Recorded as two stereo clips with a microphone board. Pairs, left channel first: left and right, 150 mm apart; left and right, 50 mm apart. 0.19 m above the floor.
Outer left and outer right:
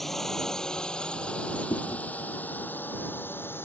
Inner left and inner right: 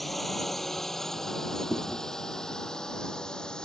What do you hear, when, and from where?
0.0 s a drone: centre (ahead or behind); by 3.6 s 15° left (ahead or behind)
1.7 s chewing: 40° left (ahead or behind)